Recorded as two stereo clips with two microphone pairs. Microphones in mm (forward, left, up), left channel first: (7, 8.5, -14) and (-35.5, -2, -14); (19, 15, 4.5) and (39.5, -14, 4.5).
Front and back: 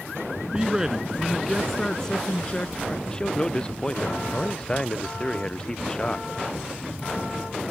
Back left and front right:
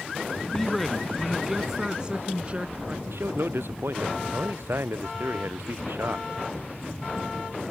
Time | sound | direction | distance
0.5 | a man speaking | 175° right | ?
3.1 | a man speaking | 60° right | ?